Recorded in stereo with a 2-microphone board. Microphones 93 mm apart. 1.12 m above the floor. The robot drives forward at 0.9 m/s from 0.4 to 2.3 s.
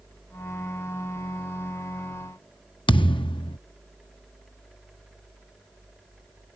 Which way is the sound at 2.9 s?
65° left (ahead or behind).